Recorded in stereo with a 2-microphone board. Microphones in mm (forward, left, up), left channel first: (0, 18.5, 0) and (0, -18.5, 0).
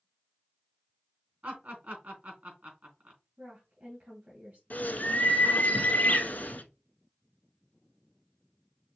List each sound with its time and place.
1.4 s laughter: 50° right (ahead or behind), 3.5 m
3.4 s a woman speaking: 55° right (ahead or behind), 2.5 m
4.7 s a bird: 60° left (ahead or behind), 0.8 m